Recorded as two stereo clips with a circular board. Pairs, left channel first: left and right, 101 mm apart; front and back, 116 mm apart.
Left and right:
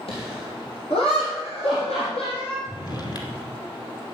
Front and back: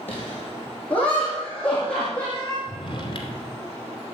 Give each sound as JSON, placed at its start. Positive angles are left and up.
{"t": 0.1, "sound": "laughter", "azimuth_deg": 75, "distance_m": 7.5}
{"t": 2.7, "sound": "a drawer", "azimuth_deg": 45, "distance_m": 2.5}